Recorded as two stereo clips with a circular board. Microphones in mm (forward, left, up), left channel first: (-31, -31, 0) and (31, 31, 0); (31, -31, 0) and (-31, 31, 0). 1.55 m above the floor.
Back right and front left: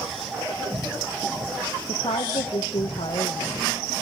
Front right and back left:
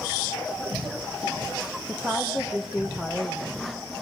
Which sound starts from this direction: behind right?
A woman speaking, at 1.9 s.